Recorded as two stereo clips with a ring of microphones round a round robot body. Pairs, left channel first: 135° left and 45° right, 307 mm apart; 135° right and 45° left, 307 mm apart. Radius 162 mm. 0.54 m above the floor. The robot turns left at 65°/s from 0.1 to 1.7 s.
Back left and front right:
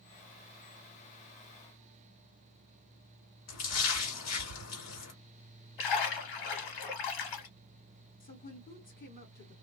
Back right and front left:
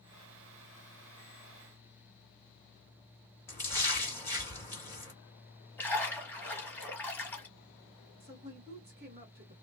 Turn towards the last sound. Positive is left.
turn(degrees=85)